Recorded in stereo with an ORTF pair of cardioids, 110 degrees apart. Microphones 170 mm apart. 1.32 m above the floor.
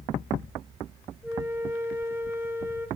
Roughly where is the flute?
Ahead.